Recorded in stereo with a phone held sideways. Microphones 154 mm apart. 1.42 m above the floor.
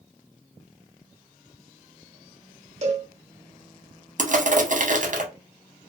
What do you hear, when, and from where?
2.8 s a cowbell: 50° right (ahead or behind), 0.8 m
4.2 s crushing: 60° right (ahead or behind), 0.7 m